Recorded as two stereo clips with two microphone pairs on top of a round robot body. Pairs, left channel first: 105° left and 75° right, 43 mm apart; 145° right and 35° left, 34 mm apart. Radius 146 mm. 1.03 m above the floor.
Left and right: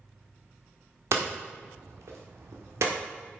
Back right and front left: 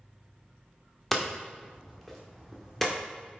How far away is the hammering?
About 1.4 m.